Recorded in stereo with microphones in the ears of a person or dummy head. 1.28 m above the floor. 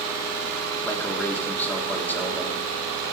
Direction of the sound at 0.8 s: 5° left (ahead or behind).